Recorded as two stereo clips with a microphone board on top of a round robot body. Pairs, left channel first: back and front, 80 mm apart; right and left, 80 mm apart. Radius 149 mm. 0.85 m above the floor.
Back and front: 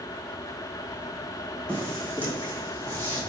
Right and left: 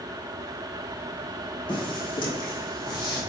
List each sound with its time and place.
1.7 s footsteps: 105° right, 3.5 m; by 3.2 s 115° right, 2 m